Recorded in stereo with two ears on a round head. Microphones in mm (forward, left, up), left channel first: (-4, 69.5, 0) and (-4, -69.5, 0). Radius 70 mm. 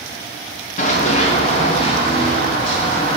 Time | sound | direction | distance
0.8 | running footsteps | 50° left (ahead or behind) | 2 m